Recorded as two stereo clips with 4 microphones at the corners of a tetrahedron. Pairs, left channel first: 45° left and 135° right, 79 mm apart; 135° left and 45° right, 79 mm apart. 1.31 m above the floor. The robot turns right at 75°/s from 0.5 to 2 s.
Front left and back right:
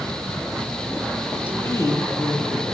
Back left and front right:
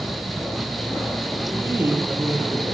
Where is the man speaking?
30° right, 8.5 m; by 2.6 s 10° left, 8.5 m.